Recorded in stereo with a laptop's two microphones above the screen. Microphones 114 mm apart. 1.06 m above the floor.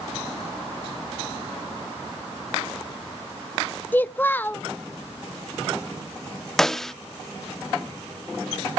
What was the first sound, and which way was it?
A child speaking, 15° left (ahead or behind).